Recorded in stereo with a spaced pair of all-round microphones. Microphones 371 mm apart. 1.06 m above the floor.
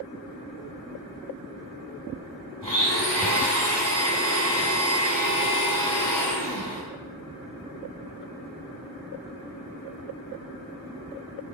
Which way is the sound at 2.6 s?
15° left (ahead or behind).